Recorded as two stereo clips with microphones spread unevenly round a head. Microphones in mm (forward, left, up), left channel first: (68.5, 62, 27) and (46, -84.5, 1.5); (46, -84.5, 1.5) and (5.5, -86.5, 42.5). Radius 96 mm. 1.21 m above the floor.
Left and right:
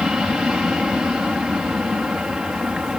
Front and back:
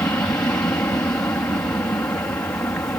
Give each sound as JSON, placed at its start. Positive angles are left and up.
{"t": 0.0, "sound": "an aircraft", "azimuth_deg": -15}